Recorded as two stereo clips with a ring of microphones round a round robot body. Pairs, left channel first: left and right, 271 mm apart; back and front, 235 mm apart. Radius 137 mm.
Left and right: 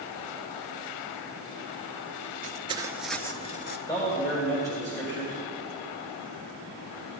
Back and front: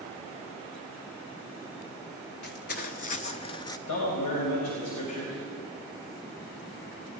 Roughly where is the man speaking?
Behind.